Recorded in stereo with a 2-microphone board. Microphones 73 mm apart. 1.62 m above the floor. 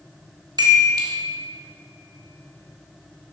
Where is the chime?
65° right (ahead or behind), 1.7 m.